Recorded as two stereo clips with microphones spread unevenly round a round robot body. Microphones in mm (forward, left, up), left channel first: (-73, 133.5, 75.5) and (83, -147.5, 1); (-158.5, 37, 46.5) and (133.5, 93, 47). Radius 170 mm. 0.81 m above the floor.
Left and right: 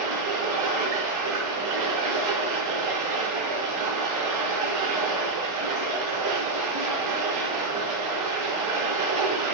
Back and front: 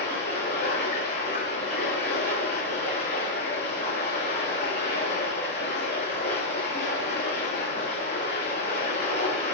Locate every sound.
0.0 s running water: 100° right, 3.5 m